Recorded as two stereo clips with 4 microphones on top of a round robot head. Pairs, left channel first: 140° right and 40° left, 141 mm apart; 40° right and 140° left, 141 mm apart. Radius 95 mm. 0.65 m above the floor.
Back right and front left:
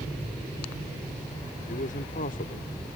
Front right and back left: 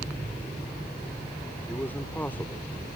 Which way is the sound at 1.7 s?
120° right.